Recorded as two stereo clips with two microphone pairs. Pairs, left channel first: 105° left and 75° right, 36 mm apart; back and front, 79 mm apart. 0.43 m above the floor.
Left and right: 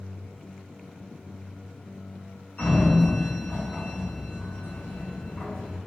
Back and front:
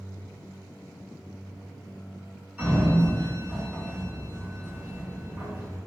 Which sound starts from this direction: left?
A sliding door, at 2.6 s.